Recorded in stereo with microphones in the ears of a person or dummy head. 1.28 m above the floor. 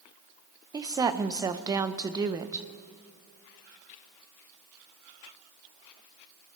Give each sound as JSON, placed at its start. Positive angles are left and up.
{"t": 0.7, "sound": "a woman speaking", "side_deg": -15, "distance_m": 0.7}